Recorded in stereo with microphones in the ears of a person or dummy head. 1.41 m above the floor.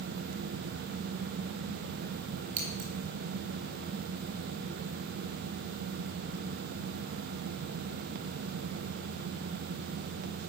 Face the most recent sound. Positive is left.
turn(degrees=-45)  # may be behind; listen again after turning